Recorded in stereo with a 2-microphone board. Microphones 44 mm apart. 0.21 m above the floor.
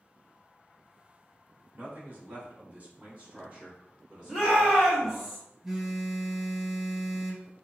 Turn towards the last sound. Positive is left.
turn(degrees=-10)  # may be behind; listen again after turning